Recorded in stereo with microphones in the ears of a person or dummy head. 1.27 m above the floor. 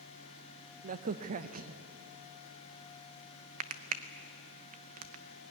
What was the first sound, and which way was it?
A crack, 40° right (ahead or behind).